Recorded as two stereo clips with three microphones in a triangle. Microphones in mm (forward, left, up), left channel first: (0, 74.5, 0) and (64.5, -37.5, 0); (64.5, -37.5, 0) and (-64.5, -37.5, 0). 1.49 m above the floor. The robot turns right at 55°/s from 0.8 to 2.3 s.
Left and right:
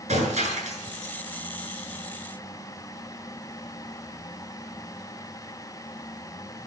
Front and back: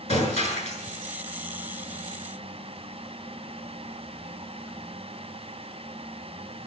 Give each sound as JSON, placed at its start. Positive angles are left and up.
{"t": 0.1, "sound": "breaking glass", "azimuth_deg": -30, "distance_m": 7.5}